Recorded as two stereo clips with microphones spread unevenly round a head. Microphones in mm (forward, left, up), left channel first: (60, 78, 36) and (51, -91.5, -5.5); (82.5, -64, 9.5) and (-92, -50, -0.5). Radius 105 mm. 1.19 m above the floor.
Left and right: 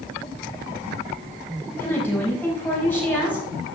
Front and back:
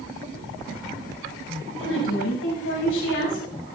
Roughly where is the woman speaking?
Ahead.